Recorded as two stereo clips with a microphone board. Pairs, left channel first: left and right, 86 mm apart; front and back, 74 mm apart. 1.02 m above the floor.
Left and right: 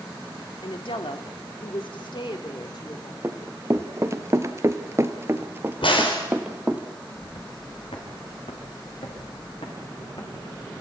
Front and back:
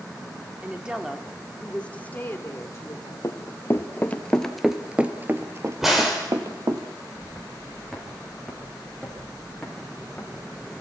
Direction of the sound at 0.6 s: 110° left.